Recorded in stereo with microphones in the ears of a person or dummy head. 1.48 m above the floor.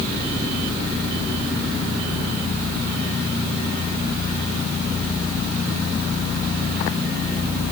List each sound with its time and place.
Only background noise.